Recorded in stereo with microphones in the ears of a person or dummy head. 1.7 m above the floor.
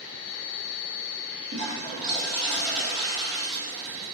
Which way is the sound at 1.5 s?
70° right (ahead or behind).